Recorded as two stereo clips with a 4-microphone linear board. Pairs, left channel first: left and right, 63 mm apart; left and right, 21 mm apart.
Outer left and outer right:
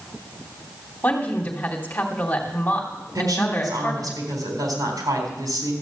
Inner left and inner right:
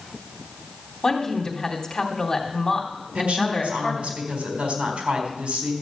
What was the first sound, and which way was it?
A woman speaking, 25° left (ahead or behind).